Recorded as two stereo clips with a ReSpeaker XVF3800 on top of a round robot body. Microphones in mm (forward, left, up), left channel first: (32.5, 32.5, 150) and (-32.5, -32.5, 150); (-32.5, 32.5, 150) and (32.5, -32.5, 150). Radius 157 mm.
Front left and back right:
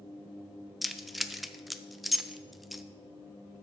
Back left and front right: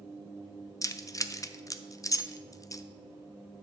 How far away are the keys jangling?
About 0.7 m.